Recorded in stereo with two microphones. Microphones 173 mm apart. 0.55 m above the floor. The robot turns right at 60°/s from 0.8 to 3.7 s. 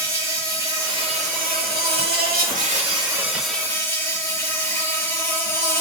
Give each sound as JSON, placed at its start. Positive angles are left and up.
{"t": 0.0, "sound": "an insect", "azimuth_deg": -160, "distance_m": 0.9}